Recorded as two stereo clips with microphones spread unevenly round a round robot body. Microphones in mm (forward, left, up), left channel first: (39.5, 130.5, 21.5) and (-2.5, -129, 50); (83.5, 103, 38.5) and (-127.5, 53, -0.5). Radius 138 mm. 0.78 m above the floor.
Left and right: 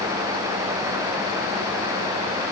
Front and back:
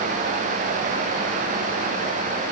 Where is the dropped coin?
I don't hear a dropped coin.